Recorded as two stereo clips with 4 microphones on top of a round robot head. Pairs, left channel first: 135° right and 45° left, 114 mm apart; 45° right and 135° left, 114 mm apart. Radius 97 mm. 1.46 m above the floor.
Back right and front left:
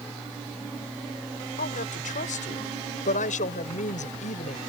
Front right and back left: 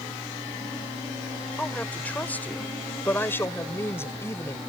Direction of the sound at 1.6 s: 125° right.